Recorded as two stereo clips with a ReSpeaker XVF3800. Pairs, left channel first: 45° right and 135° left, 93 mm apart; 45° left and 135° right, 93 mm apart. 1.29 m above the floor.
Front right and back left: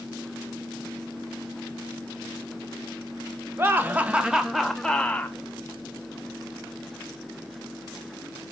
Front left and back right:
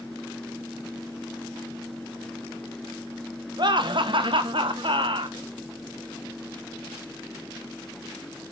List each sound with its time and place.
3.6 s laughter: 160° right, 1.4 m; by 5.4 s 115° right, 1.3 m